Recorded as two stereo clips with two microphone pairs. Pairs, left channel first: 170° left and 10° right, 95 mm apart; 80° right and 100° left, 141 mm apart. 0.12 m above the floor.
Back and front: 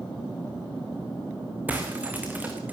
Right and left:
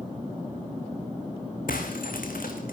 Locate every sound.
1.7 s breaking glass: 80° right, 4 m